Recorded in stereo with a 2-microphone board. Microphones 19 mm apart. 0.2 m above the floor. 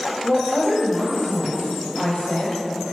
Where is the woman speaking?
60° left (ahead or behind), 5 m.